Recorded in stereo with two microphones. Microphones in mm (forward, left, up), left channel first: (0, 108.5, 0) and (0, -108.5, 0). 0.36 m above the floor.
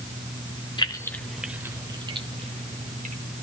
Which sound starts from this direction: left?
Keys jangling, at 0.8 s.